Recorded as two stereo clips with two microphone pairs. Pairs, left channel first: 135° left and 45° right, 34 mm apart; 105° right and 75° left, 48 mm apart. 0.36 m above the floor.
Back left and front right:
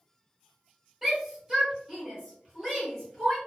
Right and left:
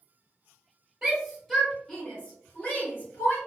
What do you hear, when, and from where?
1.0 s a shout: 20° left, 1.1 m; by 3.4 s 120° right, 1.6 m